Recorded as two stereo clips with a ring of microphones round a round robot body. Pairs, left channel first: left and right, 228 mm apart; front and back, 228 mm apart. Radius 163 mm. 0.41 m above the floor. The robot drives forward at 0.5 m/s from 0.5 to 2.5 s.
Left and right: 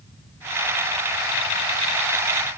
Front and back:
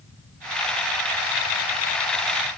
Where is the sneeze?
I don't hear a sneeze.